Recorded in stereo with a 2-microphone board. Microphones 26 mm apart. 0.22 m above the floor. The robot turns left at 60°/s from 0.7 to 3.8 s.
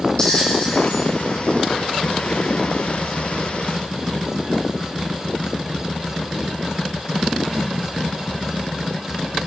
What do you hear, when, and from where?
0.2 s a bell: 30° left (ahead or behind), 5 m; by 1.1 s 10° left (ahead or behind), 5 m